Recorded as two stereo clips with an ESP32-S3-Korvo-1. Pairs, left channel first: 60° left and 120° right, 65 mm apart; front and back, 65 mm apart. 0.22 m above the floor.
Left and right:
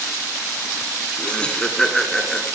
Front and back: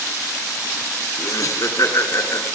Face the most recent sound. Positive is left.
turn(degrees=-25)